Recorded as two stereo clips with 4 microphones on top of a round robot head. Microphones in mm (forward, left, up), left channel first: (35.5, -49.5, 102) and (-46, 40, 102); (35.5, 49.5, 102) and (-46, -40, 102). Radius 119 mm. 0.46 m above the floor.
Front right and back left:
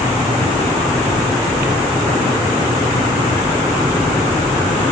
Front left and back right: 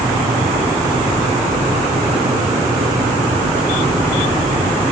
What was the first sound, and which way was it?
Only background noise.